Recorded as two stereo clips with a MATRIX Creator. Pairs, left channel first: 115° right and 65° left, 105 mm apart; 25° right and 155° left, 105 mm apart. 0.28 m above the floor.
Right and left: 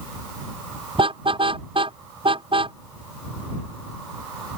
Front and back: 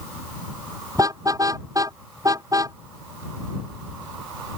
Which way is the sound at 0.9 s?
100° left.